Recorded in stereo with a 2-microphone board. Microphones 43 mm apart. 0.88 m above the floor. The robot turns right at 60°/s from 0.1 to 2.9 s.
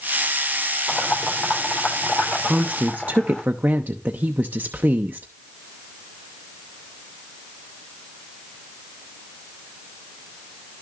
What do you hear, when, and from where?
0.9 s boiling: 40° left (ahead or behind), 3.5 m; by 3.4 s 20° left (ahead or behind), 3.5 m
2.4 s a woman speaking: 20° right (ahead or behind), 0.8 m; by 5.3 s 45° right (ahead or behind), 0.8 m